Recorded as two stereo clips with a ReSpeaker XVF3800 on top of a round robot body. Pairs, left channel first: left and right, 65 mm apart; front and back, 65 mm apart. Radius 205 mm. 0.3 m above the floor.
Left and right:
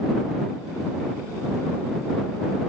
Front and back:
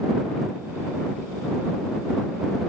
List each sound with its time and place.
Only background noise.